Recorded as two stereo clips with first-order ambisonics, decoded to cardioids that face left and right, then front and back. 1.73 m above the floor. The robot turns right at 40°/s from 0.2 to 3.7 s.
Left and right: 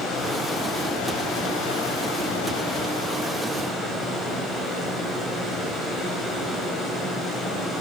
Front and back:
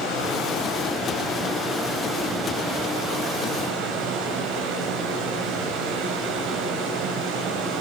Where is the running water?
25° left, 7.5 m; by 7.8 s 165° left, 7.5 m.